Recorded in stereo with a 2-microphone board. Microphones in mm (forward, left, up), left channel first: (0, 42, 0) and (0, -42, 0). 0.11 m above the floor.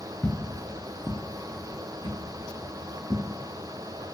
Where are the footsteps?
20° left (ahead or behind), 0.6 m; by 3.3 s 85° right, 1.5 m.